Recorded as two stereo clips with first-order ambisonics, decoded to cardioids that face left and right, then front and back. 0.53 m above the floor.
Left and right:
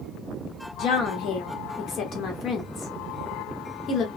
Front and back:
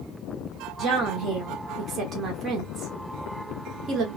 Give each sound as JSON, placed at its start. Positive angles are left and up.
{"t": 0.8, "sound": "a woman speaking", "azimuth_deg": 130, "distance_m": 1.1}